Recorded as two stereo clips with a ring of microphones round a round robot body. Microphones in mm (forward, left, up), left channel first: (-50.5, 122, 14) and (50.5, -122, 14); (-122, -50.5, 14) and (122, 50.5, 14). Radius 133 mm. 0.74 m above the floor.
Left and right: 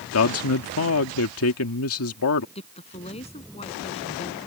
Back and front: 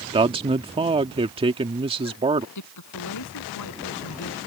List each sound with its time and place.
0.1 s a man speaking: 90° left
2.5 s a woman speaking: straight behind